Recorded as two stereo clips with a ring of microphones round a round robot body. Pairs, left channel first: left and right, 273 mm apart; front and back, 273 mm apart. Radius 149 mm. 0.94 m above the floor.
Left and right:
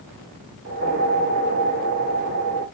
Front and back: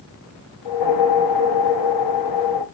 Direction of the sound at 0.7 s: 30° right.